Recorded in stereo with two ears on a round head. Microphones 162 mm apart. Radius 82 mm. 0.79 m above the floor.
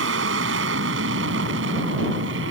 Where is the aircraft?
75° right (ahead or behind); by 2.5 s 70° right (ahead or behind).